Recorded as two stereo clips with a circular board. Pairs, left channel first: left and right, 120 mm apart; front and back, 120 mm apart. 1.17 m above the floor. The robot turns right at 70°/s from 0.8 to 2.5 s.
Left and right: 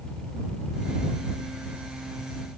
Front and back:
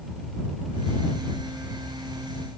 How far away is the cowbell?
No cowbell in this recording.